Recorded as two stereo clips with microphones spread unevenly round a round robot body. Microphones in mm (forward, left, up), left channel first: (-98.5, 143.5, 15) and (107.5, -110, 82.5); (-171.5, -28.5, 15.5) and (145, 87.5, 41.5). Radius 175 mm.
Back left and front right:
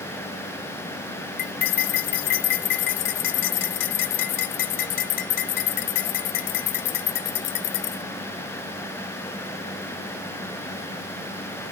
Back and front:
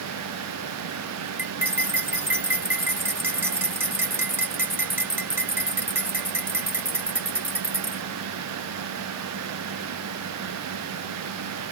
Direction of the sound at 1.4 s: 105° left.